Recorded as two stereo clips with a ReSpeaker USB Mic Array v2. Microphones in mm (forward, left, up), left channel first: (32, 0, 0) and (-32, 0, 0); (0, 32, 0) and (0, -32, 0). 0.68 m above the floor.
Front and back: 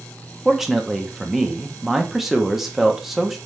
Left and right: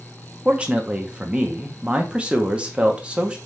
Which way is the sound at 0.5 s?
100° right.